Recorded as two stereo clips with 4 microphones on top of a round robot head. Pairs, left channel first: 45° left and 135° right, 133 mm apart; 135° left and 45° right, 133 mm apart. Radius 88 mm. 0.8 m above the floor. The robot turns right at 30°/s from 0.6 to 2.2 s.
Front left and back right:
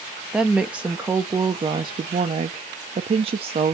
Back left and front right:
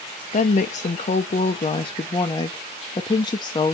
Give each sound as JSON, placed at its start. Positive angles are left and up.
{"t": 0.3, "sound": "a woman speaking", "azimuth_deg": 140, "distance_m": 0.5}